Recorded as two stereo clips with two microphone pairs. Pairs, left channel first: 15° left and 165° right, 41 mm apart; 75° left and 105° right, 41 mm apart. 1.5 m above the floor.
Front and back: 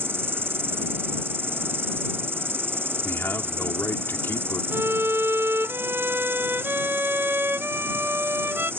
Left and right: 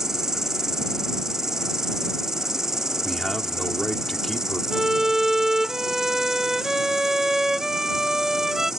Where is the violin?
Straight behind.